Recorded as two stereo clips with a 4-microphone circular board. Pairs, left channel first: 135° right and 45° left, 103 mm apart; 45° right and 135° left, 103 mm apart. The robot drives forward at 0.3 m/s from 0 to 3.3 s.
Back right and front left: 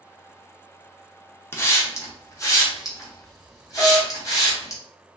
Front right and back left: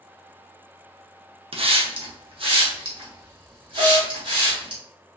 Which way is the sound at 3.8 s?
145° left.